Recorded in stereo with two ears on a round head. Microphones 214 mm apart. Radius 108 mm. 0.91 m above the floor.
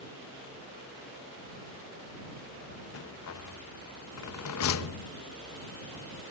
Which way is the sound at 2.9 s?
65° left (ahead or behind).